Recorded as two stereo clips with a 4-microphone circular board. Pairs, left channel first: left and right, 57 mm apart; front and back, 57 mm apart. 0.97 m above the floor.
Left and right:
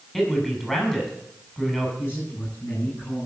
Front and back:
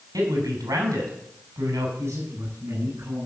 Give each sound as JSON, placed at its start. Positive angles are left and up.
{"t": 0.1, "sound": "a man speaking", "azimuth_deg": 175, "distance_m": 6.0}
{"t": 2.0, "sound": "a man speaking", "azimuth_deg": 135, "distance_m": 9.5}